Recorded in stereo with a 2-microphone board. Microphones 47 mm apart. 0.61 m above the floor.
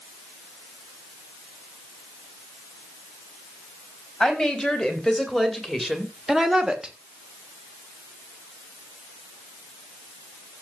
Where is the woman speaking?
10° left (ahead or behind), 4 m; by 7.0 s 20° right (ahead or behind), 1.7 m.